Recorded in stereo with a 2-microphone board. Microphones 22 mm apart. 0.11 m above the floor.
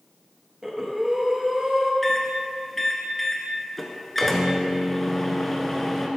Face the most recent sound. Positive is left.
turn(degrees=10)  # may be behind; listen again after turning